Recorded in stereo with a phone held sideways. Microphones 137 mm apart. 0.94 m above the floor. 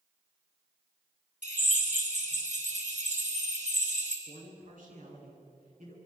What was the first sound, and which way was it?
A drill, 65° right (ahead or behind).